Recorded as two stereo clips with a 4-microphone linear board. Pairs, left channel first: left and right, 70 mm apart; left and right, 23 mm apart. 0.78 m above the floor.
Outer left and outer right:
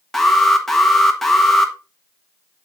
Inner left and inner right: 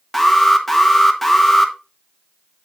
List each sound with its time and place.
0.1 s an alarm: 5° left (ahead or behind), 1.4 m